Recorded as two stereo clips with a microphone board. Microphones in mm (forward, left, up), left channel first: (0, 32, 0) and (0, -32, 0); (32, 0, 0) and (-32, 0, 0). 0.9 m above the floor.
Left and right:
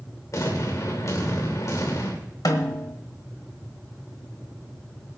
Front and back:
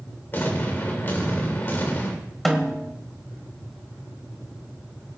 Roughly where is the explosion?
Ahead left.